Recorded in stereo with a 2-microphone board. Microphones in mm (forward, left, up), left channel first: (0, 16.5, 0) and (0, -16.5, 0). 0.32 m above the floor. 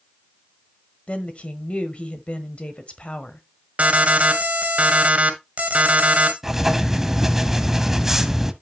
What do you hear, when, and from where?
1.1 s a woman speaking: 45° left (ahead or behind), 1.3 m
3.8 s an alarm: 45° right (ahead or behind), 1.7 m
6.4 s writing: 10° right (ahead or behind), 0.9 m